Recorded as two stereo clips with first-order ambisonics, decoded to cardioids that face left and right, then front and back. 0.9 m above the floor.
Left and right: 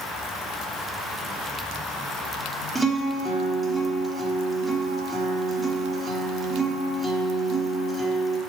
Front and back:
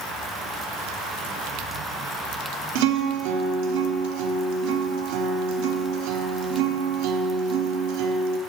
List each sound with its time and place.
2.8 s a guitar: 170° right, 1.0 m